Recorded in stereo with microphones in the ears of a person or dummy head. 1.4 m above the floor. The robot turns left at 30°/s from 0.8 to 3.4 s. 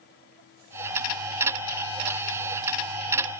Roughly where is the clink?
No clink in this recording.